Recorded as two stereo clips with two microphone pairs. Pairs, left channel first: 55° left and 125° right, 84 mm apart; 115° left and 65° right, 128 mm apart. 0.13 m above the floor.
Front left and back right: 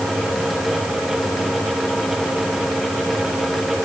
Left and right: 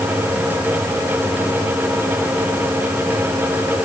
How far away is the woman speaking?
I don't hear a woman speaking.